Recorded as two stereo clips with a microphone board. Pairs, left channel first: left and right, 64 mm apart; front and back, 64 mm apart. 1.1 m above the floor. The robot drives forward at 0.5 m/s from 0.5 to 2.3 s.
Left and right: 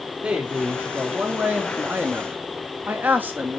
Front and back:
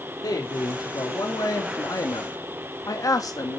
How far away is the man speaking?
About 2.5 m.